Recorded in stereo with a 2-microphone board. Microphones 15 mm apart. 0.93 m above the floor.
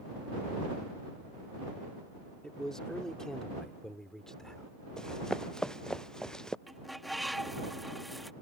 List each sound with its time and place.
2.4 s a man speaking: 55° left (ahead or behind); by 4.7 s 40° left (ahead or behind)
5.0 s running footsteps: 55° left (ahead or behind); by 6.6 s 60° left (ahead or behind)
6.7 s a bird: 5° left (ahead or behind)